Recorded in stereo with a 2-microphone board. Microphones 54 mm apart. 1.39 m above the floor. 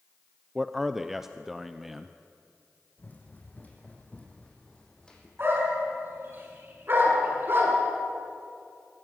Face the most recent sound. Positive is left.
turn(degrees=-40)  # may be behind; listen again after turning